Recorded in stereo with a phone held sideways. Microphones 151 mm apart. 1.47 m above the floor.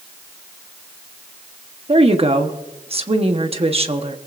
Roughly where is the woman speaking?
Right.